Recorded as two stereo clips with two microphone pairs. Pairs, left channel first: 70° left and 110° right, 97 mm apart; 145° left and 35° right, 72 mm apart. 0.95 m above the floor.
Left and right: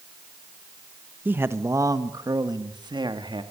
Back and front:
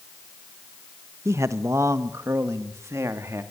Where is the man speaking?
50° right, 1.2 m; by 3.4 s 80° right, 2.5 m.